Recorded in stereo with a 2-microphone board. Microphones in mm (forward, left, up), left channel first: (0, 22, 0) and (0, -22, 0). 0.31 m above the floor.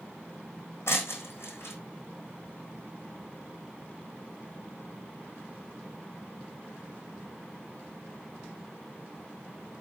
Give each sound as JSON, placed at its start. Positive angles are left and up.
{"t": 0.9, "sound": "breaking glass", "side_deg": 65, "distance_m": 4.0}